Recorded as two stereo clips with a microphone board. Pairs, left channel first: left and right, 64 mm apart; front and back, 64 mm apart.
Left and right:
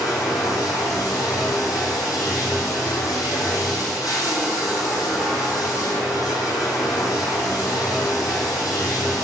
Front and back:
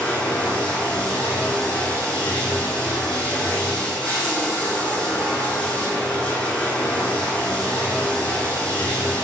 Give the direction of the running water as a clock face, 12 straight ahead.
10 o'clock.